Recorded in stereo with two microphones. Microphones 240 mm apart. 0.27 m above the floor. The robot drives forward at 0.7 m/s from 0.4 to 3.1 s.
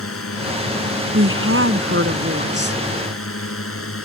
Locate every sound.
0.0 s a drone: 65° left (ahead or behind)
1.1 s a woman speaking: 65° right (ahead or behind); by 2.8 s 45° right (ahead or behind)